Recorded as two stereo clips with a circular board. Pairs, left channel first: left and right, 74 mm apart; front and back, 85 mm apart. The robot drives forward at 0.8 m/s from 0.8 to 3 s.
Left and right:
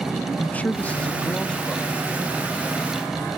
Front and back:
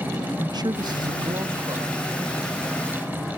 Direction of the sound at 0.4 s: 155° left.